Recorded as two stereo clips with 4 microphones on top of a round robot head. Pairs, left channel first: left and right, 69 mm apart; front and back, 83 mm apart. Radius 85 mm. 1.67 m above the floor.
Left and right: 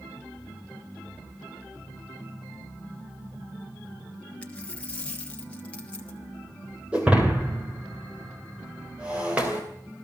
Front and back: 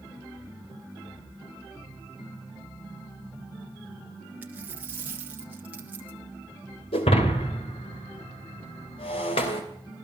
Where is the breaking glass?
15° right, 3 m.